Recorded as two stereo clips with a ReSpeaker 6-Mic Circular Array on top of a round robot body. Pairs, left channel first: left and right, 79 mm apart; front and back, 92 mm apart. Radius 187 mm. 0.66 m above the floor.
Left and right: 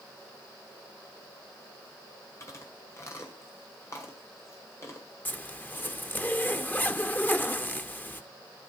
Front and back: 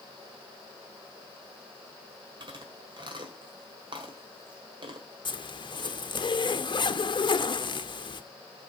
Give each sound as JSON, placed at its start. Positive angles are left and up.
{"t": 2.4, "sound": "chewing", "azimuth_deg": 145, "distance_m": 1.8}
{"t": 5.2, "sound": "a zipper", "azimuth_deg": 25, "distance_m": 0.9}